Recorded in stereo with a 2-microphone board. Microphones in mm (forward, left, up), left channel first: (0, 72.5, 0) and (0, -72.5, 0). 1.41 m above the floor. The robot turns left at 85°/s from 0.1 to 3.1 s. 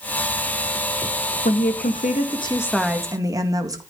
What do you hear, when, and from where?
1.4 s a woman speaking: 115° left, 1.8 m; by 3.8 s 25° right, 1.8 m